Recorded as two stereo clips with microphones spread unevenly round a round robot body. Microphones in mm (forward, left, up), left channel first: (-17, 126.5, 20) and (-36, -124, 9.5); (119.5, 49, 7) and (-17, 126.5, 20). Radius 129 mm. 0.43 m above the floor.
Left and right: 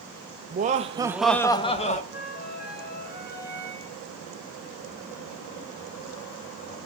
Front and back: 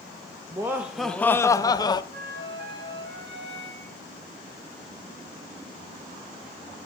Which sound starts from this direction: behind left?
A flute, at 2.1 s.